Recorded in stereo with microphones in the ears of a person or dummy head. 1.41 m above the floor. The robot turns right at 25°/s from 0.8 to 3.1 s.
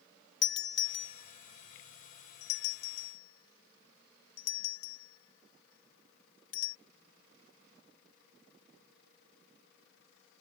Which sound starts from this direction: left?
A doorbell, at 0.4 s.